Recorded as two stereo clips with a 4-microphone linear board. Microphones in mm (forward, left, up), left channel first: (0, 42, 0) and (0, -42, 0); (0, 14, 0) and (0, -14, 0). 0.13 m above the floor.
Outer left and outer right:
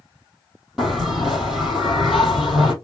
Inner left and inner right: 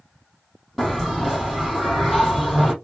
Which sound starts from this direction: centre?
A bell, at 0.8 s.